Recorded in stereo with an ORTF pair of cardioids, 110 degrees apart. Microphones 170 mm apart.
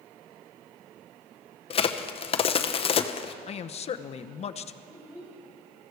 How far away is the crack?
About 0.9 m.